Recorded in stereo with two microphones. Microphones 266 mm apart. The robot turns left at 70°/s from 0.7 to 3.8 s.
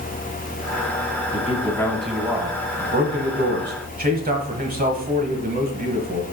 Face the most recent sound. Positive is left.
turn(degrees=-125)